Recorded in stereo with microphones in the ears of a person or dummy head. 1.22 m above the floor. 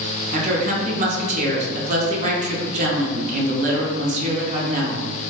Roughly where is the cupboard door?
I don't hear a cupboard door.